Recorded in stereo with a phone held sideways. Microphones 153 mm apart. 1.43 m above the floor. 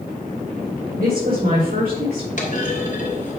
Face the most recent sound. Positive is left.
turn(degrees=60)  # may be behind; listen again after turning